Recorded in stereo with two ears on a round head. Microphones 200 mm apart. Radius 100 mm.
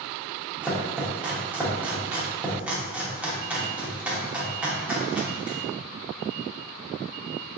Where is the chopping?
5° right (ahead or behind), 0.7 m.